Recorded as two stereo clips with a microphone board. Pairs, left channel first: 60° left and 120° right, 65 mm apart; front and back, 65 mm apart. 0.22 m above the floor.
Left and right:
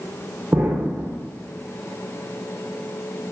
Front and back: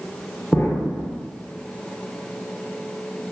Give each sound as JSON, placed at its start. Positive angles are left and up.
{"t": 0.5, "sound": "an explosion", "azimuth_deg": -55, "distance_m": 1.3}